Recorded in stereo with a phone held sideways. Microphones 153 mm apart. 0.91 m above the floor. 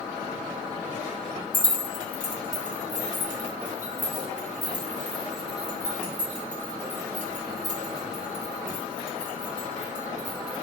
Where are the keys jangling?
65° right (ahead or behind), 1.6 m; by 10.6 s 55° right (ahead or behind), 6.5 m.